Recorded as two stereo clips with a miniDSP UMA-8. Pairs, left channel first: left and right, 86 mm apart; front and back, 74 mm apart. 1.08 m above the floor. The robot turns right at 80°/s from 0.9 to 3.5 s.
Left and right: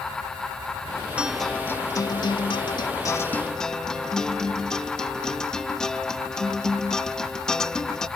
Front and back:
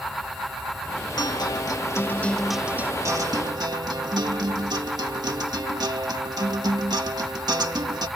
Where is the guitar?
15° right; by 8.1 s 170° left.